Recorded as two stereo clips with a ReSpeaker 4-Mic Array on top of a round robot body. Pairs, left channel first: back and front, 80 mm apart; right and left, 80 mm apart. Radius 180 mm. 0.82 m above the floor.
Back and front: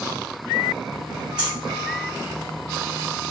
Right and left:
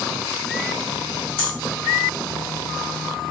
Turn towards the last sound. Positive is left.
turn(degrees=-80)